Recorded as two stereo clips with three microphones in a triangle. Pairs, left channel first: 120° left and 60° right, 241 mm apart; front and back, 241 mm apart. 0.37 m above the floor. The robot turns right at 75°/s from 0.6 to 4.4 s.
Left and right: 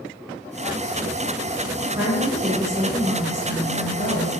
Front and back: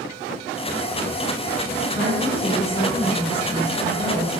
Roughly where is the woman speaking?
Ahead.